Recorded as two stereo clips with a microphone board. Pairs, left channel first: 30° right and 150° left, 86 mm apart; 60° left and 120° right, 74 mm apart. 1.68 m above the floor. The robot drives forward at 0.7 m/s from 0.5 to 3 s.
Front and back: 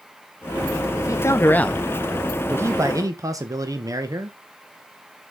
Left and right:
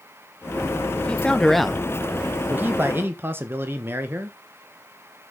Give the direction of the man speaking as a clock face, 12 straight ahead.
12 o'clock.